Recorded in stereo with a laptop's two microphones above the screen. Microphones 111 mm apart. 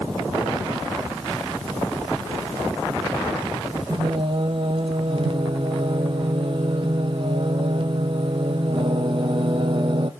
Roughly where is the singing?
Right.